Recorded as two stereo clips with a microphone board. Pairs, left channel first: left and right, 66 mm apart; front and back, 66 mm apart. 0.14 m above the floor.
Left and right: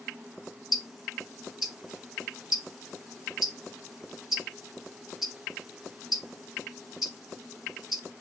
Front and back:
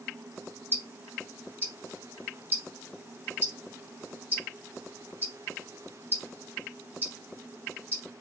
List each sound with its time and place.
0.7 s ticking: 170° right, 1.4 m